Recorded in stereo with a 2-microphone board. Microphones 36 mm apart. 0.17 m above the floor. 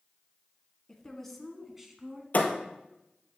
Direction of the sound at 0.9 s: 15° left (ahead or behind).